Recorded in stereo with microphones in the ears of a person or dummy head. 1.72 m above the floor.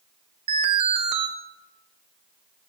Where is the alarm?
35° right (ahead or behind), 2 m.